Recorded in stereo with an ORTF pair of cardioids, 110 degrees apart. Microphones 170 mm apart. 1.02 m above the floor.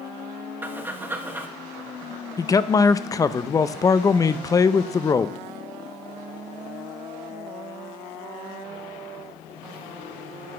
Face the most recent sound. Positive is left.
turn(degrees=20)